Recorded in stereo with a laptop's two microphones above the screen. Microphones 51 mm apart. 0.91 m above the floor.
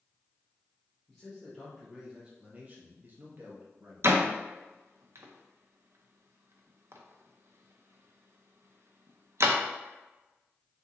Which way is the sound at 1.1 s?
10° left (ahead or behind).